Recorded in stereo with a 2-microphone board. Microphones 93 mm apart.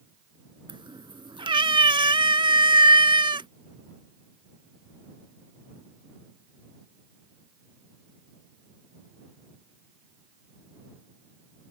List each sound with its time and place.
0.7 s a cat meowing: 65° right (ahead or behind)